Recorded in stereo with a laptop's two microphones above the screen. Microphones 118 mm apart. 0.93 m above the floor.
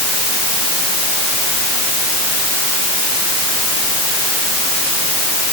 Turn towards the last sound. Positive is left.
No sound to turn to.